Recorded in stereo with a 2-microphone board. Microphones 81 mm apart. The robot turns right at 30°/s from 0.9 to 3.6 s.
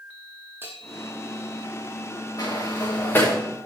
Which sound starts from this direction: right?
A bell, at 0.6 s.